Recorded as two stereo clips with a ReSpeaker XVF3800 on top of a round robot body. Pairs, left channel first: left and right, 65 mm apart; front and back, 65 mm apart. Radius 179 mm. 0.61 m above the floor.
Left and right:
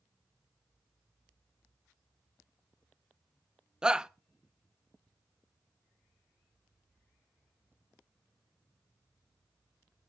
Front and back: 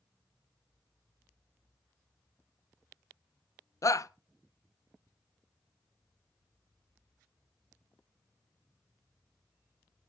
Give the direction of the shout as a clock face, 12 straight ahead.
12 o'clock.